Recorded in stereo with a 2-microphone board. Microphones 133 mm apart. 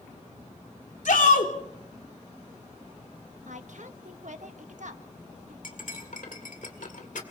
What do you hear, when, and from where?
1.1 s a shout: 80° left, 3 m
3.5 s a woman speaking: 70° right (ahead or behind), 1.5 m
5.6 s cutlery clinking: 75° left (ahead or behind), 2.0 m